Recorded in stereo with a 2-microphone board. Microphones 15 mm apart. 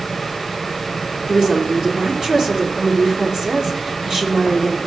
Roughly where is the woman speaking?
Right.